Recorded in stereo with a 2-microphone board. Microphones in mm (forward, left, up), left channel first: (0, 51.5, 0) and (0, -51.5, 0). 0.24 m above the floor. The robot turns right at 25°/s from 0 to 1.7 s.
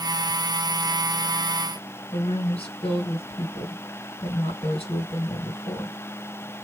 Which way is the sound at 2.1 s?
65° left (ahead or behind).